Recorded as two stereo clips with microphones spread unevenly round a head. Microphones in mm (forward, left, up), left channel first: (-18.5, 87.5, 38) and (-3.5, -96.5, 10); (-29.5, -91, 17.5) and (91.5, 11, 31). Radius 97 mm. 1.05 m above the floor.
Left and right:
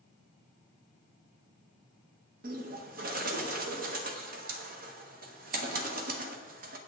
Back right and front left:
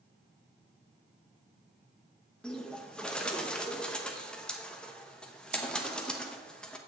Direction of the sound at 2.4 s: 60° right.